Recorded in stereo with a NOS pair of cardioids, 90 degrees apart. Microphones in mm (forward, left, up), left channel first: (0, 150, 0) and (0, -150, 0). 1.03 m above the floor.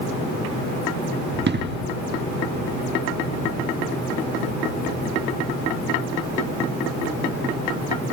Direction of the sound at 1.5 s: 35° right.